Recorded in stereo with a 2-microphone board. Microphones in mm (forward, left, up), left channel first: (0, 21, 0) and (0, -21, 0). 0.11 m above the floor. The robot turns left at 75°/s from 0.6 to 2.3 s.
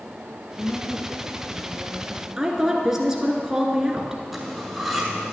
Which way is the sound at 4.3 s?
Centre (ahead or behind).